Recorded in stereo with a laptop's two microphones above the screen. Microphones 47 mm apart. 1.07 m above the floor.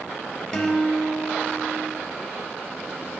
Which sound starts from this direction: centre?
A guitar, at 0.5 s.